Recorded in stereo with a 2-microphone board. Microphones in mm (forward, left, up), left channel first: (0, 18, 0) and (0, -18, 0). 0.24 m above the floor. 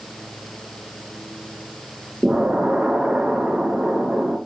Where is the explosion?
40° right (ahead or behind), 3 m.